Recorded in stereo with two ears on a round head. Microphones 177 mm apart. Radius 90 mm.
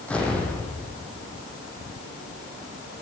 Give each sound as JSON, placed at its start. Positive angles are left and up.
{"t": 0.1, "sound": "an explosion", "side_deg": 5, "distance_m": 3.5}